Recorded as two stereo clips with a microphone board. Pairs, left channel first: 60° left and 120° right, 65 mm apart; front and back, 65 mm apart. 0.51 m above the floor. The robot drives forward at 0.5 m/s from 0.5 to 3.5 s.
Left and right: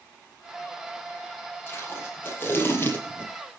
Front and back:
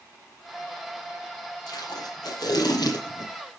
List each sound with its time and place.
1.7 s tape being pulled: 5° left, 6 m